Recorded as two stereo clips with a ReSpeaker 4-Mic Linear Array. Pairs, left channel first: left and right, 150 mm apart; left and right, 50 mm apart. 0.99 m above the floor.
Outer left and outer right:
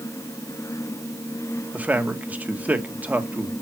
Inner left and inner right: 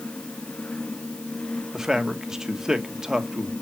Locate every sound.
1.7 s a man speaking: 10° right (ahead or behind), 1.1 m